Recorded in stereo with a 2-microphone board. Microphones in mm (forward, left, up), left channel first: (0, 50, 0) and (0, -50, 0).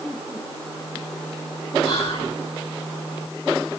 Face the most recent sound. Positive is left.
turn(degrees=65)  # may be behind; listen again after turning